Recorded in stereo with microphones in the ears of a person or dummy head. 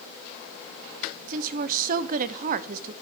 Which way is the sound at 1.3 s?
55° right (ahead or behind).